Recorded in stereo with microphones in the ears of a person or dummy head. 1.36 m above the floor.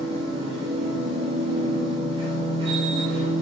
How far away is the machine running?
About 2 m.